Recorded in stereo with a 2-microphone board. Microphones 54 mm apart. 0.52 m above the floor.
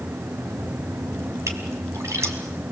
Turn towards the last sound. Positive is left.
turn(degrees=-60)  # may be behind; listen again after turning